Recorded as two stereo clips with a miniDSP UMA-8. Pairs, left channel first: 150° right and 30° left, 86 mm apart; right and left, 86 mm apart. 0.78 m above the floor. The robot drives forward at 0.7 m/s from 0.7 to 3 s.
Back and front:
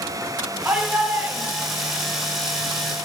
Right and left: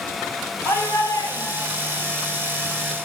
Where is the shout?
40° right, 3.5 m; by 2.0 s 50° right, 3 m.